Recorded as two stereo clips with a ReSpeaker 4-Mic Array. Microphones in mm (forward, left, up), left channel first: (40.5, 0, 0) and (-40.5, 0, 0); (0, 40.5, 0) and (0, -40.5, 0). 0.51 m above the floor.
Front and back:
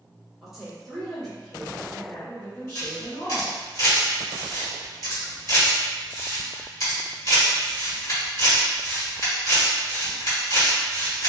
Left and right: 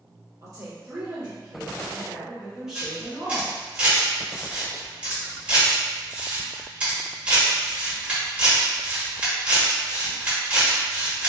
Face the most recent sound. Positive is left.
turn(degrees=-25)